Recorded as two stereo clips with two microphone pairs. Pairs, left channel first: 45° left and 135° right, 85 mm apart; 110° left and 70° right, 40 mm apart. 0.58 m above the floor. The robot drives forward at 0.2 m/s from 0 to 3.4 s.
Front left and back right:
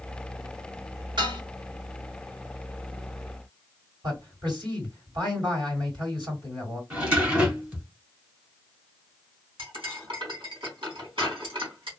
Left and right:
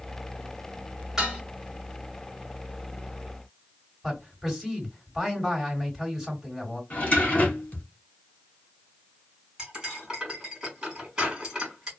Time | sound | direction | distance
1.2 | dishes clattering | 145° right | 1.4 m
4.0 | a man speaking | 155° right | 2.5 m
6.9 | a drawer | 155° left | 1.4 m
9.6 | cutlery clinking | 145° right | 2.0 m